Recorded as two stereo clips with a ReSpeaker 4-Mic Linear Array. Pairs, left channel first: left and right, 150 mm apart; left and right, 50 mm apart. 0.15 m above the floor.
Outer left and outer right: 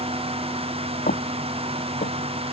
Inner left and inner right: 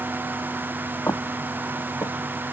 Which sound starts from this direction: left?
Footsteps, at 1.1 s.